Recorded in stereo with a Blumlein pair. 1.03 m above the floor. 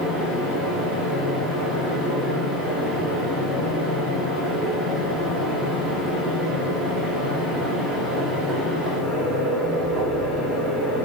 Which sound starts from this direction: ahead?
A fan, at 0.0 s.